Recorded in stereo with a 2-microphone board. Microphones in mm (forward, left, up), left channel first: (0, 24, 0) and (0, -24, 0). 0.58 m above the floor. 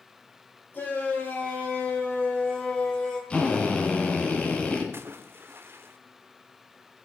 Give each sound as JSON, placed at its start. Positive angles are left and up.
{"t": 0.7, "sound": "a shout", "side_deg": 50, "distance_m": 2.5}
{"t": 3.3, "sound": "a drill", "side_deg": 25, "distance_m": 2.5}
{"t": 4.9, "sound": "a splash", "side_deg": -55, "distance_m": 0.7}